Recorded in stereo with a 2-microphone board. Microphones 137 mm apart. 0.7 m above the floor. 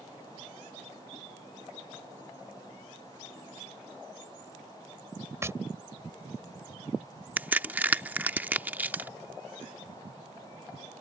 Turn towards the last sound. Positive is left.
turn(degrees=-15)  # may be behind; listen again after turning